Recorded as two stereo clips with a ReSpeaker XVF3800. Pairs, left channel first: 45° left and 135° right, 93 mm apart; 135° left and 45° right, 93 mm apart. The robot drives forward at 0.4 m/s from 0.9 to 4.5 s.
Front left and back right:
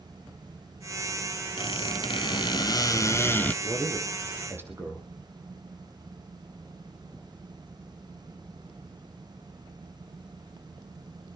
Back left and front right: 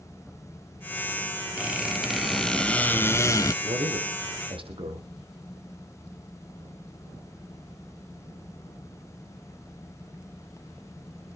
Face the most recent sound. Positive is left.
turn(degrees=-70)